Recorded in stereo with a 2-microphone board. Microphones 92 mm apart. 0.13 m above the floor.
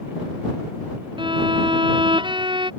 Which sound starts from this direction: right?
A violin, at 1.2 s.